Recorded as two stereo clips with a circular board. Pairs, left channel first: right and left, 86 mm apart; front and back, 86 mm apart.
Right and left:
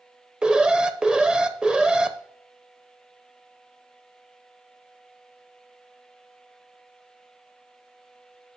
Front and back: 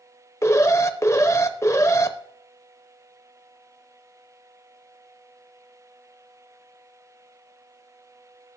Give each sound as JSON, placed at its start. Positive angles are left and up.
{"t": 0.4, "sound": "an alarm", "azimuth_deg": 15, "distance_m": 0.6}